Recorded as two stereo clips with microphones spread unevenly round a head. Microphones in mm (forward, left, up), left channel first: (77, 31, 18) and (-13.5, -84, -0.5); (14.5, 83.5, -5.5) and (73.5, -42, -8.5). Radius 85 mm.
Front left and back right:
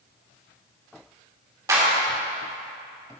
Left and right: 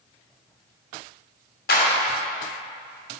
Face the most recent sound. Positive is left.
turn(degrees=160)